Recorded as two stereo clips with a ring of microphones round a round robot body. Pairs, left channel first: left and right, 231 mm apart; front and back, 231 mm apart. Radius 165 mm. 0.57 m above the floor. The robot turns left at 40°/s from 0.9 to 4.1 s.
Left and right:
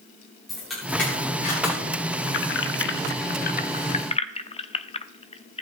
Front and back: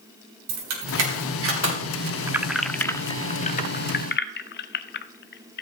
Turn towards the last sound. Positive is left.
turn(degrees=30)